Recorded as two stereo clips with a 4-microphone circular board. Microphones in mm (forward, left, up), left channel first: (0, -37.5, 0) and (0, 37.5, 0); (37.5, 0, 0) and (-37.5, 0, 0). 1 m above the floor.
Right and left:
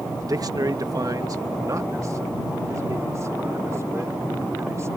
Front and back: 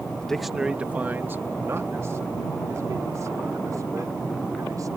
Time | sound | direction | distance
0.2 | a man speaking | 75° left | ?